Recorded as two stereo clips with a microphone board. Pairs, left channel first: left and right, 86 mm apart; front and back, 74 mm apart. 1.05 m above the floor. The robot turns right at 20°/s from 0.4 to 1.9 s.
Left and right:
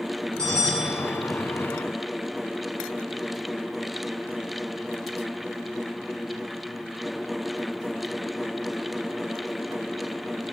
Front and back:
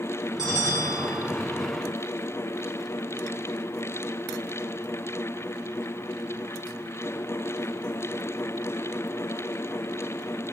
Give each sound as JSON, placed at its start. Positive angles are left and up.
{"t": 0.4, "sound": "a bell", "azimuth_deg": 170, "distance_m": 3.5}